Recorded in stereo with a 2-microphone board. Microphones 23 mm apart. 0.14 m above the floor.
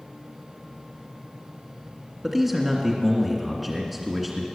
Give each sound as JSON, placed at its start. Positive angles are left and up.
{"t": 2.2, "sound": "a man speaking", "side_deg": -5, "distance_m": 1.9}